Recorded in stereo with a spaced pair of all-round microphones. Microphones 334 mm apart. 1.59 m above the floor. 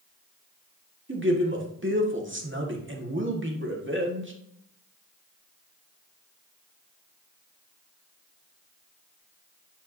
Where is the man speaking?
35° right (ahead or behind), 1.7 m.